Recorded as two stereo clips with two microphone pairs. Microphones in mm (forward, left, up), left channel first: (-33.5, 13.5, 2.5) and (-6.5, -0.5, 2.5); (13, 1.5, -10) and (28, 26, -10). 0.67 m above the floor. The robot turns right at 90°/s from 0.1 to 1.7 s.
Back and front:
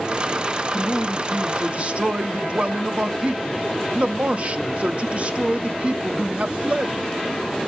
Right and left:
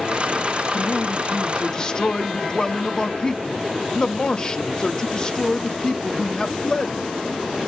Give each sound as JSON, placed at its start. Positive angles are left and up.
{"t": 0.7, "sound": "a man speaking", "azimuth_deg": -145, "distance_m": 0.9}